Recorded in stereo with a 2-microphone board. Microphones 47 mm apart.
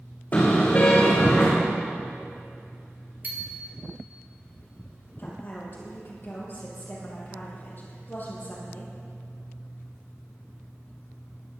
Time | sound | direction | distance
0.3 | a car horn | 40° left (ahead or behind) | 6 m
3.2 | a bicycle bell | 40° right (ahead or behind) | 2.5 m
5.2 | a woman speaking | 40° left (ahead or behind) | 5 m